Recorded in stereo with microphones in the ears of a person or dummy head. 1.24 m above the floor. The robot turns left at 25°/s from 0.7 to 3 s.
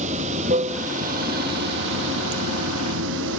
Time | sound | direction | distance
0.0 | running water | 40° right | 0.9 m